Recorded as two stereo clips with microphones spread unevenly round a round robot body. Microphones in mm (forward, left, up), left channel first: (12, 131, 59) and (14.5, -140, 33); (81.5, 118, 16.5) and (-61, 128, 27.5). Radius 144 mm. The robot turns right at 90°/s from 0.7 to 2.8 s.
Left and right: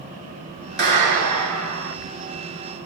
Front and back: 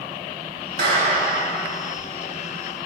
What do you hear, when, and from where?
0.8 s a clap: 145° right, 4.5 m; by 1.9 s 40° right, 4.5 m